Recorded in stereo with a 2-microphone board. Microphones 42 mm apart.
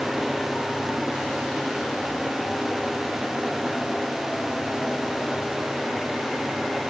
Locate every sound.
Only background noise.